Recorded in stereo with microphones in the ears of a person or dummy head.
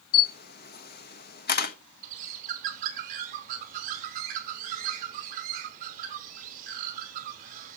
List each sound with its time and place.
0.1 s a camera shutter: 55° left (ahead or behind), 1.2 m
2.0 s a bird: 45° right (ahead or behind), 2 m